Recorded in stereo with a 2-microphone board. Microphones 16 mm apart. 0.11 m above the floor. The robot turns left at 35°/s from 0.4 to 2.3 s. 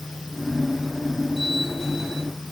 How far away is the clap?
No clap in this recording.